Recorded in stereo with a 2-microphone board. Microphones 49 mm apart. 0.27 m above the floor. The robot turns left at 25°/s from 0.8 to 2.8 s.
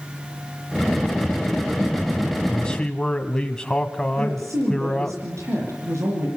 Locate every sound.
2.5 s a man speaking: 20° left (ahead or behind), 1.5 m; by 5.2 s 15° left (ahead or behind), 1.5 m
4.2 s a woman speaking: 80° right, 8 m